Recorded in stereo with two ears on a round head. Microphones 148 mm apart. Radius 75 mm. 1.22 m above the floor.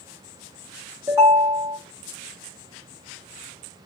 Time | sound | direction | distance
1.1 | a ringtone | 15° right (ahead or behind) | 1.4 m